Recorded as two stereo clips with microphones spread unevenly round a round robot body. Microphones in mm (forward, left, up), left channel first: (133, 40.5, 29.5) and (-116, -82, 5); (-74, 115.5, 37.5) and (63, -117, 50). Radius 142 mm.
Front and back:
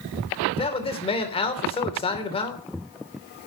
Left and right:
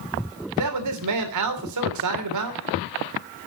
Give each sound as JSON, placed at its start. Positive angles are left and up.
{"t": 0.6, "sound": "a man speaking", "azimuth_deg": -45, "distance_m": 3.0}